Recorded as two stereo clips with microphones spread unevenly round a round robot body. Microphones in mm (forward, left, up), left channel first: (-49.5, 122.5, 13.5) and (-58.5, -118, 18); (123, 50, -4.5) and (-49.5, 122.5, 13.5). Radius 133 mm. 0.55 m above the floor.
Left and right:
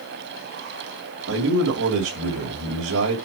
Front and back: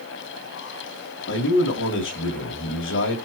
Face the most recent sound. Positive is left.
turn(degrees=-45)